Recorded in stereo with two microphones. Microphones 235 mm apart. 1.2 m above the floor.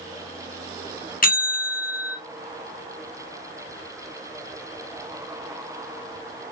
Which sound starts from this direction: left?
A bell, at 1.2 s.